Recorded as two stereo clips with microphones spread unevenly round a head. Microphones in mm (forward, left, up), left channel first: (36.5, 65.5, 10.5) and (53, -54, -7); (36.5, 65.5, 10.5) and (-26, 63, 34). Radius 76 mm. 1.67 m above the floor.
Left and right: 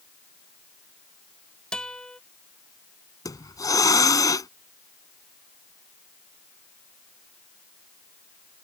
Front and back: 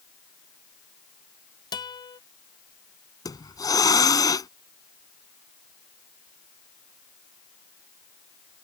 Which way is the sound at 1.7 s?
15° left.